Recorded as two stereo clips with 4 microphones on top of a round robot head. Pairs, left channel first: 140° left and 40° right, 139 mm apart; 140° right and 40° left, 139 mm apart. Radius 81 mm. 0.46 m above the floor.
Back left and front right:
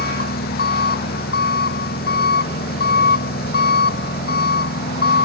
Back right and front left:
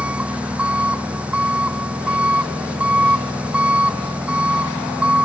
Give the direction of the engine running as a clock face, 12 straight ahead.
8 o'clock.